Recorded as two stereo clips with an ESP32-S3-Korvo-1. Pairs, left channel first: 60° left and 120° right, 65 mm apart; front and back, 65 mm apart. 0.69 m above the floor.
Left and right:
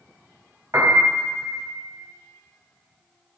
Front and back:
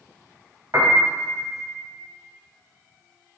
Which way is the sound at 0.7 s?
155° right.